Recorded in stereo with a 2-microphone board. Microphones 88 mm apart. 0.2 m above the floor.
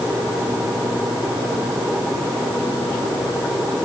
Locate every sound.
Only background noise.